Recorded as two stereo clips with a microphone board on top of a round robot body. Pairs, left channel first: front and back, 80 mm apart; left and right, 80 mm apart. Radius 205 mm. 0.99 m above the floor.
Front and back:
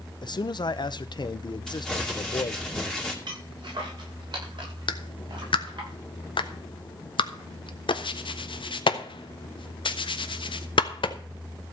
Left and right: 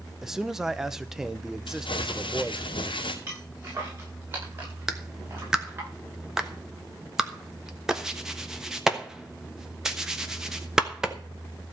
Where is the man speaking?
5° right, 1.1 m.